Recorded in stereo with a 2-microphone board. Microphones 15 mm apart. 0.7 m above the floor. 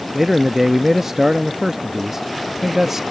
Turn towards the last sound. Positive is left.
turn(degrees=-25)  # may be behind; listen again after turning